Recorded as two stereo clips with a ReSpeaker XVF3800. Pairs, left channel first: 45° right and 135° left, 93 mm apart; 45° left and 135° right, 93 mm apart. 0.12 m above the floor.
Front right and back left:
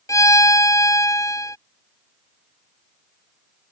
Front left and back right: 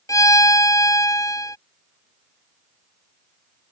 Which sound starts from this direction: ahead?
A violin, at 0.1 s.